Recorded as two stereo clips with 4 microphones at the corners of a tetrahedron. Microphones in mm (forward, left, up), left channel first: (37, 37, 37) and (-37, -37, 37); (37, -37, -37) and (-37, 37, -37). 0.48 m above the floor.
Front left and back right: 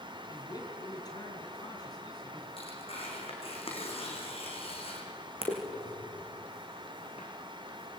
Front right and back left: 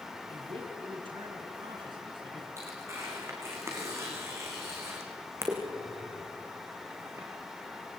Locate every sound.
0.3 s a man speaking: 95° left, 5.5 m
2.6 s tearing paper: 70° left, 5.5 m